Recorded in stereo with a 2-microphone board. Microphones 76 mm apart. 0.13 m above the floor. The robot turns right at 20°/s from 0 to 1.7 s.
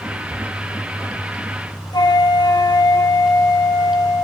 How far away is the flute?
About 0.8 m.